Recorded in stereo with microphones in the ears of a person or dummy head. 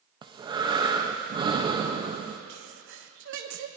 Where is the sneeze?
65° right (ahead or behind), 1.0 m.